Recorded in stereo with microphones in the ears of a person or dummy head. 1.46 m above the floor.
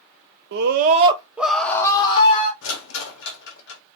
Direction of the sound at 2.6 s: 70° left (ahead or behind).